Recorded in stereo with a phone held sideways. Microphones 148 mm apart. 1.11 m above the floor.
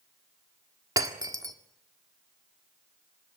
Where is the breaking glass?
25° right (ahead or behind), 1.6 m.